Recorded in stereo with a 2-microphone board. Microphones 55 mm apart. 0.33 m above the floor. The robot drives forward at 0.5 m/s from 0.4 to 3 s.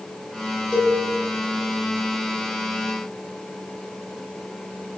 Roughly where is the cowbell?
Left.